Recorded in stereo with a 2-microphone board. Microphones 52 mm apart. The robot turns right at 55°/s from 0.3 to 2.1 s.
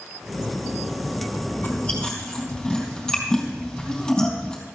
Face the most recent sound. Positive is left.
turn(degrees=15)  # may be behind; listen again after turning